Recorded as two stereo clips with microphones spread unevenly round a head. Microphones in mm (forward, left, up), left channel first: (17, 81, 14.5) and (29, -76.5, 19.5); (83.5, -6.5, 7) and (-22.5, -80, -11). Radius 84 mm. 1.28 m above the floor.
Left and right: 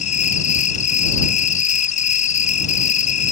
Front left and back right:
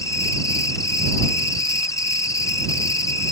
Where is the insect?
105° left.